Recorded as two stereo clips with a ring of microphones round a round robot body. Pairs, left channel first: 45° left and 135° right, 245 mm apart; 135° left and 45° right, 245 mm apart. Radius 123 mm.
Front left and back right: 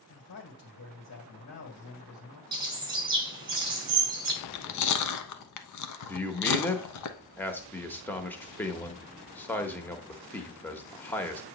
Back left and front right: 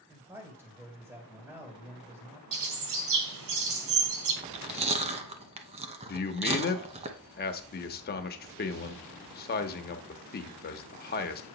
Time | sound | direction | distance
0.1 | a man speaking | 30° left | 2 m
2.5 | a bird | 65° right | 1.7 m
4.4 | chewing | 20° left | 0.9 m
6.1 | a man speaking | 125° left | 1.0 m